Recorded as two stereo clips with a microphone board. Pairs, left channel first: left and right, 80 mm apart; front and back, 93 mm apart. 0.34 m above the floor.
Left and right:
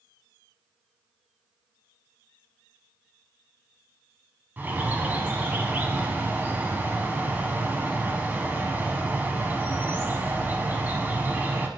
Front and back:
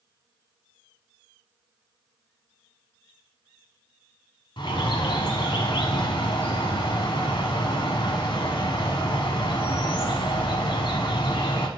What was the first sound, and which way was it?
A bird, 20° right.